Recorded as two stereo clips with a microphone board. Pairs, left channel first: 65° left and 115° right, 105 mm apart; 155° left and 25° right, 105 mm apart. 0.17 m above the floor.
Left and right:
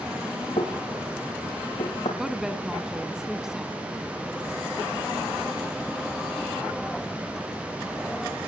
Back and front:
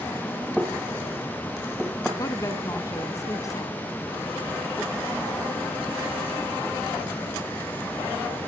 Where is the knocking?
70° left, 4.5 m.